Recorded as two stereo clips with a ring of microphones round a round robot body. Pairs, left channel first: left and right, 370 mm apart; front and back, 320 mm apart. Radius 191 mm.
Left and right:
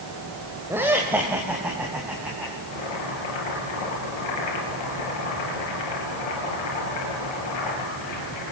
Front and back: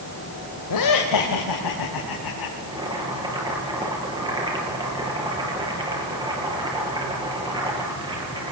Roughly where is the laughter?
Ahead.